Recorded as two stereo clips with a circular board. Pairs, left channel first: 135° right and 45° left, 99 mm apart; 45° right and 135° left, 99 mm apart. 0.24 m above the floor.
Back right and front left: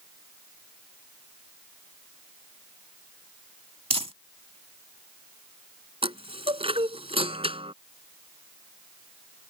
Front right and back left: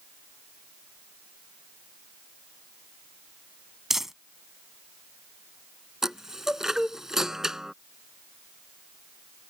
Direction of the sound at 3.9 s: 50° left.